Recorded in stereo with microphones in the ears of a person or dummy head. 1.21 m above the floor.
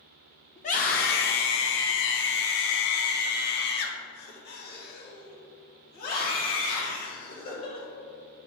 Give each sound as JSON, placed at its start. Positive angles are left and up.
{"t": 0.6, "sound": "a scream", "side_deg": 25, "distance_m": 0.7}